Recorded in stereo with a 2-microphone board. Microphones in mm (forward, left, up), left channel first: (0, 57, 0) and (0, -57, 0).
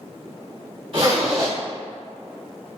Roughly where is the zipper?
Right.